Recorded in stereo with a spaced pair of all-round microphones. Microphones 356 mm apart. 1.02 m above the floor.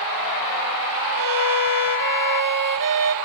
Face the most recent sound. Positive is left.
turn(degrees=-65)  # may be behind; listen again after turning